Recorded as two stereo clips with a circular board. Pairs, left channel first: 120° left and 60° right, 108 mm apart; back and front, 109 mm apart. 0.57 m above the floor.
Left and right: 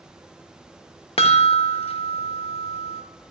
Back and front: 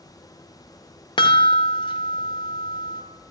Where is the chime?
140° left, 0.9 m.